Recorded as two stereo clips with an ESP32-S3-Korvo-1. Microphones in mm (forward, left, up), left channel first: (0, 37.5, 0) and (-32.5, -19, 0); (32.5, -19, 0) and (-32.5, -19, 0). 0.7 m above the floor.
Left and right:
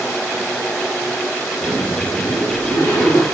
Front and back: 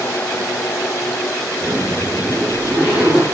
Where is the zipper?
100° left, 4 m.